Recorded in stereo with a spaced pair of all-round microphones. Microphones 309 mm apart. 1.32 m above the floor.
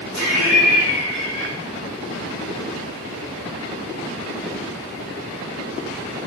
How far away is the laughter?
About 3 m.